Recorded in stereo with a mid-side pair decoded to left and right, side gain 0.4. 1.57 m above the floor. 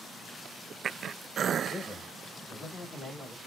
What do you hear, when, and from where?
1.7 s a man speaking: 65° left, 2 m; by 3.4 s 30° left, 1.8 m